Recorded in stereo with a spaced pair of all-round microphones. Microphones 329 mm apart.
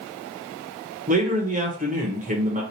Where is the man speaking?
25° right (ahead or behind), 1.0 m.